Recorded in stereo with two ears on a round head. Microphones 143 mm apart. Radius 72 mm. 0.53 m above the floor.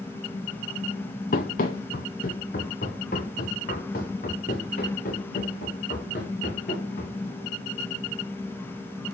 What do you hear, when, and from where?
1.3 s running footsteps: 55° left (ahead or behind), 1.0 m; by 7.2 s 50° left (ahead or behind), 4 m